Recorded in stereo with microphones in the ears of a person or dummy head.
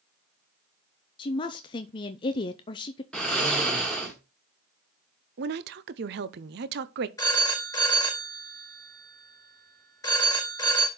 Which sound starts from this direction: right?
A woman speaking, at 5.4 s.